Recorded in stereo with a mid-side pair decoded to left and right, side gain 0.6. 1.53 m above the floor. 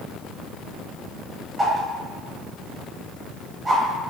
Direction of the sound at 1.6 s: 20° right.